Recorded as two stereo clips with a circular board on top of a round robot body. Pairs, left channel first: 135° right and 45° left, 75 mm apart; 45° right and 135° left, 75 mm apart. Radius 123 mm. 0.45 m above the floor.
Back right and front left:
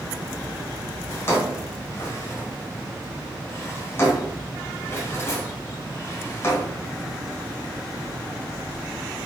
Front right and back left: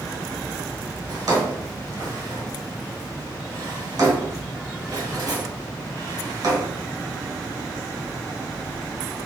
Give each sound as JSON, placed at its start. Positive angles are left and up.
{"t": 1.1, "sound": "a drawer", "azimuth_deg": 165, "distance_m": 1.8}